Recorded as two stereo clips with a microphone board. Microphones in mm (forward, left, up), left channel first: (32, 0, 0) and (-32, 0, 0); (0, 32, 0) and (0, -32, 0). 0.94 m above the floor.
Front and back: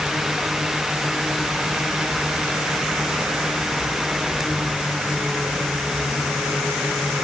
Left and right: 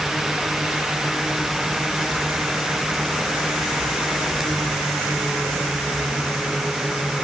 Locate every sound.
Only background noise.